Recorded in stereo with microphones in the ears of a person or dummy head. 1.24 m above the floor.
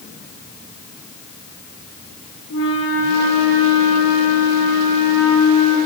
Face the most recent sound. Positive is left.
turn(degrees=80)